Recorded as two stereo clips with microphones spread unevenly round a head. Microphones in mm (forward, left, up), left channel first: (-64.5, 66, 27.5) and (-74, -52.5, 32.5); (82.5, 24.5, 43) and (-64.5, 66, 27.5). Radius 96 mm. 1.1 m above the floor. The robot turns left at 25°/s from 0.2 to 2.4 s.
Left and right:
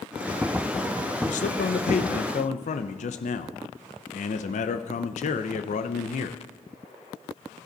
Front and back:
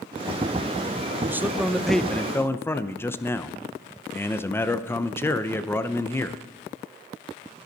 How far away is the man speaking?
About 0.6 m.